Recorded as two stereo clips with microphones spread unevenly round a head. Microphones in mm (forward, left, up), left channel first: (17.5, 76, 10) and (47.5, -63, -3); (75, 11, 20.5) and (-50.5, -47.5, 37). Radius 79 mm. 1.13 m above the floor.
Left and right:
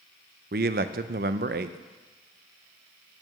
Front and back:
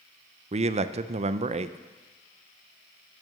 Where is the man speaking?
110° right, 0.5 m.